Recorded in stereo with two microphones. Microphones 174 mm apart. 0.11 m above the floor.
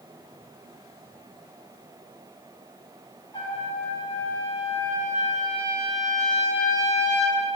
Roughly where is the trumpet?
Left.